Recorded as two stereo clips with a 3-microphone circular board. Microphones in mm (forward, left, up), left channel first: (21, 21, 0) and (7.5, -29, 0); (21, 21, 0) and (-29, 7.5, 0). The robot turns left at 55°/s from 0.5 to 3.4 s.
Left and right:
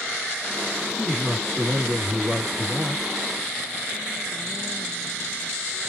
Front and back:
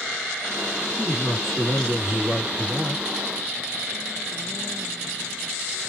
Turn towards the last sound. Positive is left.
turn(degrees=-100)